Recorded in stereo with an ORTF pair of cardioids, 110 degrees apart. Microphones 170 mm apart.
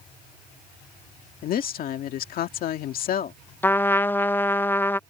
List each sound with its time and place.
1.4 s a woman speaking: 65° left
3.6 s a trumpet: 15° left